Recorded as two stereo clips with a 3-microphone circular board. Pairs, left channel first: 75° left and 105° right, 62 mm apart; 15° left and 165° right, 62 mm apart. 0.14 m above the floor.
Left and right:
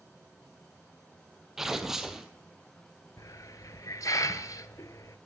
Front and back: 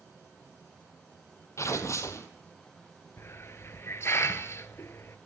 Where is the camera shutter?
I don't hear a camera shutter.